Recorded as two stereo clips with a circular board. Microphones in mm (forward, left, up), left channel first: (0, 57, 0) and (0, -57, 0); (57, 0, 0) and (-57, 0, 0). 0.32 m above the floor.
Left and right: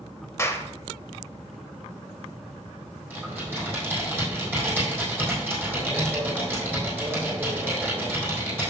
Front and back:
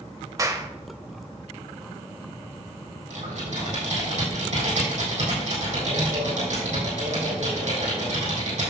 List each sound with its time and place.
0.4 s a clap: 140° left, 0.7 m
3.1 s typing on a keyboard: 165° right, 4 m